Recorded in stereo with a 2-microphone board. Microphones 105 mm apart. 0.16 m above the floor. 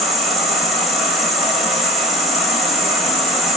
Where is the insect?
Centre (ahead or behind), 1.0 m.